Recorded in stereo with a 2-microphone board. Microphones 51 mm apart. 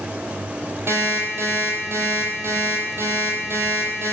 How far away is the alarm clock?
About 1.4 m.